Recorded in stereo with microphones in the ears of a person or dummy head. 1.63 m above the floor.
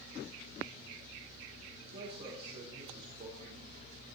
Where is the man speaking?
40° right (ahead or behind), 3.5 m.